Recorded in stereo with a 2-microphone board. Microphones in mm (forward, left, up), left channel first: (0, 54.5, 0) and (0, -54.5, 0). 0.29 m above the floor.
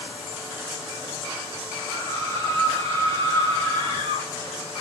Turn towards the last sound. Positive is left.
turn(degrees=-65)  # may be behind; listen again after turning